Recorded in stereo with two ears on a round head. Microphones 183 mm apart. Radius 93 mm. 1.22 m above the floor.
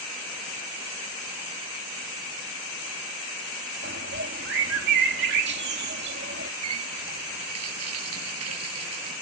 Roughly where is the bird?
Right.